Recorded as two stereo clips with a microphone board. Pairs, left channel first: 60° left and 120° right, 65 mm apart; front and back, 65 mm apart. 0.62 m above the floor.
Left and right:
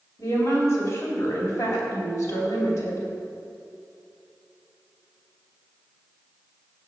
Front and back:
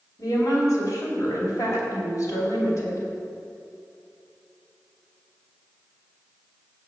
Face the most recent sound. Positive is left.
turn(degrees=30)